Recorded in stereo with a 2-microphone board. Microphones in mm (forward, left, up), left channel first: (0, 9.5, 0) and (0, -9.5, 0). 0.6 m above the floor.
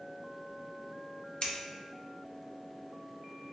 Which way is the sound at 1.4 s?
50° left (ahead or behind).